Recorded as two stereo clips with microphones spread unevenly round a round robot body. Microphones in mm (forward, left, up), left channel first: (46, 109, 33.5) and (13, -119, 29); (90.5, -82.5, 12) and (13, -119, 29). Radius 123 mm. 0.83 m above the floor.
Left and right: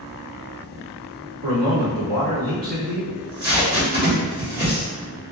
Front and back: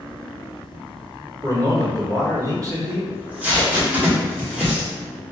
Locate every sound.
1.4 s a man speaking: 105° right, 1.9 m
3.1 s tape being pulled: 80° right, 1.4 m